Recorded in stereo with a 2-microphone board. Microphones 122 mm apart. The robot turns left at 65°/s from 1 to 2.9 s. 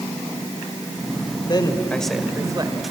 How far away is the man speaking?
About 1.8 m.